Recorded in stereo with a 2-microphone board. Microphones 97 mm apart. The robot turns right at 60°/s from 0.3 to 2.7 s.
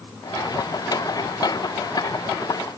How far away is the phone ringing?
No phone ringing in this recording.